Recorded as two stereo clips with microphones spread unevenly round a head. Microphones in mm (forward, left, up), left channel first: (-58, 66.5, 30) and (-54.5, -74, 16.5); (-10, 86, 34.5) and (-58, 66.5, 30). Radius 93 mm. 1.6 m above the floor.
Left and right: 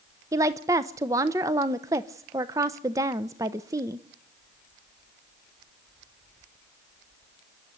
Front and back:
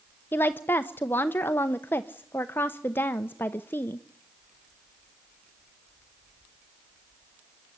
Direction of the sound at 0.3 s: 15° right.